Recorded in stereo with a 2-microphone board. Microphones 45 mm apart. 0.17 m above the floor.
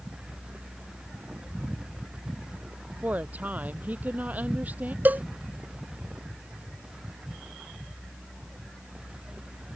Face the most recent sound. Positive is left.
turn(degrees=-40)  # may be behind; listen again after turning